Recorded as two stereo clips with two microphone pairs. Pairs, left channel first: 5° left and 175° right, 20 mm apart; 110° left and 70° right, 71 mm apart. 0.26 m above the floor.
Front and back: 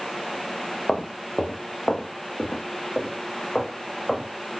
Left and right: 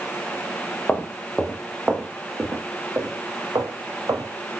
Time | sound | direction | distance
0.9 | footsteps | 40° left | 1.6 m